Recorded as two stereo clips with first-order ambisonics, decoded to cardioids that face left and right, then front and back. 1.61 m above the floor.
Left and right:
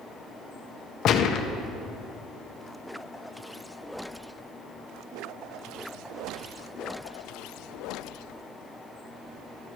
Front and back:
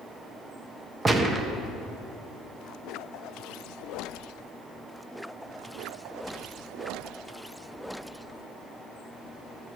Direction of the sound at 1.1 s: 115° left.